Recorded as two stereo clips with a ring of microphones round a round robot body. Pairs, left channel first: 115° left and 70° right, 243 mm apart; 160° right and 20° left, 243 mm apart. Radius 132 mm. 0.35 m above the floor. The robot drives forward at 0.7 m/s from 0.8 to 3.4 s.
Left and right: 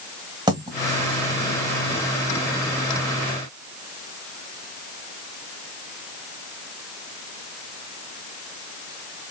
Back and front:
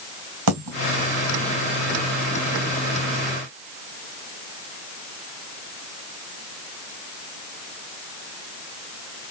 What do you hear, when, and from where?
0.5 s a dropped coin: 5° left, 2 m